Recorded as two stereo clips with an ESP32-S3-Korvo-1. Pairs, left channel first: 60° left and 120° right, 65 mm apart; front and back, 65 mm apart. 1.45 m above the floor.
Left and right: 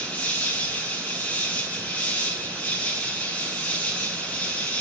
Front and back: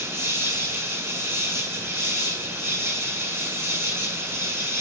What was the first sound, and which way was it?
An insect, 125° left.